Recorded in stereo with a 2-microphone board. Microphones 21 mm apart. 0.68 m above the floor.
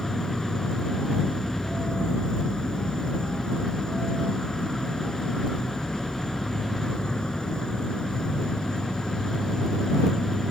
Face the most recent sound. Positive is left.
turn(degrees=40)  # may be behind; listen again after turning